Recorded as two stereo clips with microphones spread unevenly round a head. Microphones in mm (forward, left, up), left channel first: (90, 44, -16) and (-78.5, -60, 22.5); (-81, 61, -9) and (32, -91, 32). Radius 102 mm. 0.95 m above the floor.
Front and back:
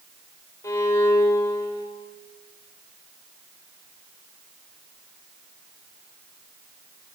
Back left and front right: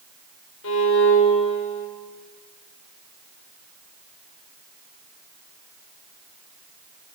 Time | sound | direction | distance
0.6 | a violin | 110° left | 3.5 m